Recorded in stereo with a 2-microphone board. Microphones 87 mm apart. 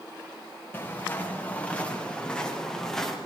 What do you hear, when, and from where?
0.7 s footsteps: 20° left (ahead or behind), 8 m; by 3.2 s 5° left (ahead or behind), 7 m